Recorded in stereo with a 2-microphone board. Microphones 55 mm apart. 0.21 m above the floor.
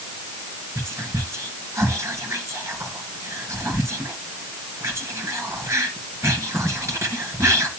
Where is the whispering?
65° right (ahead or behind), 2.5 m.